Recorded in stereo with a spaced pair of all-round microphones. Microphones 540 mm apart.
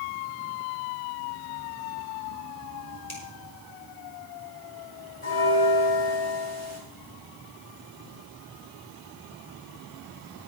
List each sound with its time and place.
3.1 s a finger snap: 55° left (ahead or behind), 4 m
5.2 s a bell: 70° left (ahead or behind), 6 m